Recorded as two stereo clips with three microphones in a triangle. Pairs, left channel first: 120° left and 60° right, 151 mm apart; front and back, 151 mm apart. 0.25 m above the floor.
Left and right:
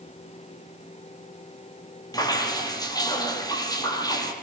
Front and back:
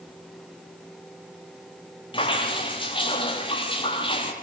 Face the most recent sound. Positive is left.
turn(degrees=55)